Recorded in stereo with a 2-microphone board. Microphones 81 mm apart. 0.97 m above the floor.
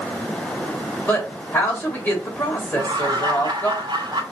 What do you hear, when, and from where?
1.1 s a woman speaking: 25° left (ahead or behind), 3.5 m
2.7 s laughter: 70° right (ahead or behind), 2.5 m